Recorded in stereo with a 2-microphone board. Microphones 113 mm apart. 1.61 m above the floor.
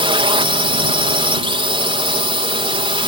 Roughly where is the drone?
Right.